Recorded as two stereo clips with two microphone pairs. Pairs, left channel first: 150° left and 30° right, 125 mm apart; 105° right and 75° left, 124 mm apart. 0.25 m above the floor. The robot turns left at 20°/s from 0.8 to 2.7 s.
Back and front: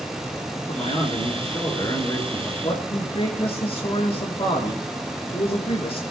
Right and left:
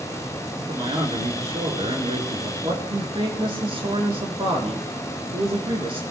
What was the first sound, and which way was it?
A man speaking, 115° left.